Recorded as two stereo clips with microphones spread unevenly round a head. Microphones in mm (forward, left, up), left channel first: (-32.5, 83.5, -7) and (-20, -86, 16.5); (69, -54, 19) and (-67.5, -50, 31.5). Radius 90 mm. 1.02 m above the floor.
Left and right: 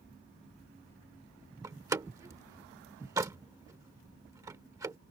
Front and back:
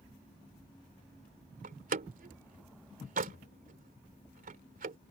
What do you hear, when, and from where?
1.6 s a door slam: 155° right